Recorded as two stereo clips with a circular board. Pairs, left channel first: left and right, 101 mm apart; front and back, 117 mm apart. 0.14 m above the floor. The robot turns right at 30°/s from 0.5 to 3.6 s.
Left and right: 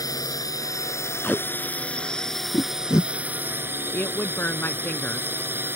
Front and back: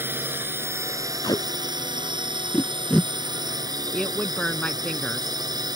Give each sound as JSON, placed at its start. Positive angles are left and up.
{"t": 0.0, "sound": "a drone", "azimuth_deg": 120}
{"t": 1.2, "sound": "tape being pulled", "azimuth_deg": 20}
{"t": 3.9, "sound": "a woman speaking", "azimuth_deg": 70}